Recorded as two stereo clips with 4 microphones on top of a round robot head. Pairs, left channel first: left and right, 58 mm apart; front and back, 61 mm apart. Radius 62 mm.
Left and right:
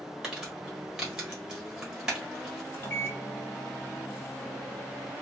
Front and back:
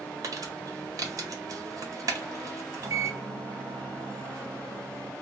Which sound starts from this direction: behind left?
A microwave, at 2.7 s.